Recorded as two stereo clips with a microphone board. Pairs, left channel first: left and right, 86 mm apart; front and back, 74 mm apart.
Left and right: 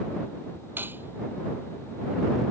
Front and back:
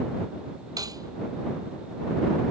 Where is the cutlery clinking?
155° right.